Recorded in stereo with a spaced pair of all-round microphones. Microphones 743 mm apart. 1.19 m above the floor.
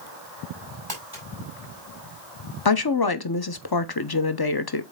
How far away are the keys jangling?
I don't hear keys jangling.